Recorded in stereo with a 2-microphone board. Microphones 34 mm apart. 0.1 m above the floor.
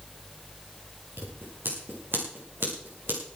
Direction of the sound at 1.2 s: 75° right (ahead or behind).